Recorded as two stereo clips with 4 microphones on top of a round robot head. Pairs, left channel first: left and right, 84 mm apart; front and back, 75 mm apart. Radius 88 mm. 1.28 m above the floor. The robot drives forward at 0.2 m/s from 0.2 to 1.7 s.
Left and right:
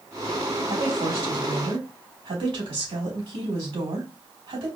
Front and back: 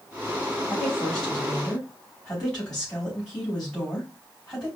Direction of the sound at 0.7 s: 80° right.